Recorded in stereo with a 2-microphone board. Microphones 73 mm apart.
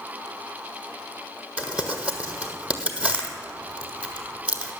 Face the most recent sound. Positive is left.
turn(degrees=-15)  # may be behind; listen again after turning